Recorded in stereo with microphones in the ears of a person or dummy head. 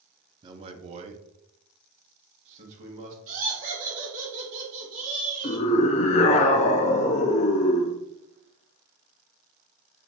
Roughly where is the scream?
Left.